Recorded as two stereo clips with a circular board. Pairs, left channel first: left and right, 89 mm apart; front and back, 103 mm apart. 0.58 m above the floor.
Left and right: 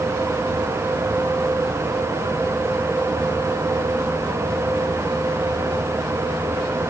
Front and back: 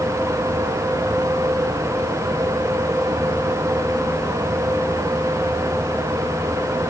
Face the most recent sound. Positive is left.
No sound to turn to.